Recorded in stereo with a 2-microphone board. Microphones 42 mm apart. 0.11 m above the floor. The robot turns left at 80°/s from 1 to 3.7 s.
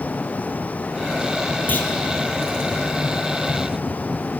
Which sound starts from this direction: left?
A clunk, at 1.7 s.